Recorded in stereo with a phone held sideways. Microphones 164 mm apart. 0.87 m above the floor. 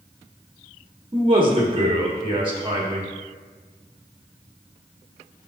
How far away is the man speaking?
About 1.5 m.